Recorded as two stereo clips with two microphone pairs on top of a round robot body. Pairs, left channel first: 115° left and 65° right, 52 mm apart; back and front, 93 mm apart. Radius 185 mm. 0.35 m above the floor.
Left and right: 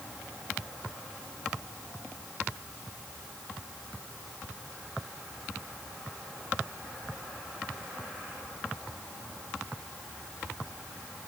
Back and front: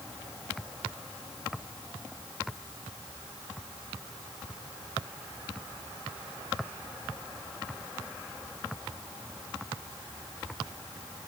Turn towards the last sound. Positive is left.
No sound to turn to.